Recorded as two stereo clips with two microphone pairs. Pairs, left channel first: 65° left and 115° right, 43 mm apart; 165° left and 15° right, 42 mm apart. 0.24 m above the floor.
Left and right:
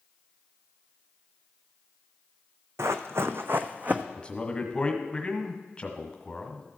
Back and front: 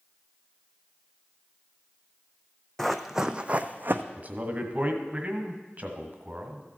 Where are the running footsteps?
115° right, 0.7 m; by 4.0 s 55° right, 0.8 m.